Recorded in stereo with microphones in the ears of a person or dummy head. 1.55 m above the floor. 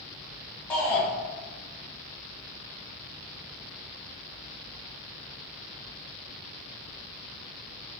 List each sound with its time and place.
0.7 s a shout: 10° left (ahead or behind), 1.5 m